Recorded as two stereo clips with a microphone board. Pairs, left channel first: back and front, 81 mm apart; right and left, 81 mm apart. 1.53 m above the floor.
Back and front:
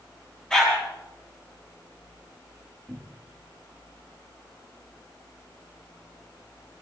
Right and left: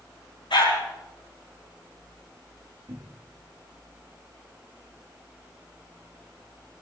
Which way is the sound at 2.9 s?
100° left.